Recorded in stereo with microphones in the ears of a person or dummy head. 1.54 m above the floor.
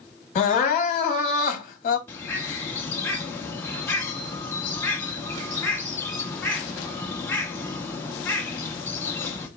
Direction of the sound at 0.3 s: 40° left (ahead or behind).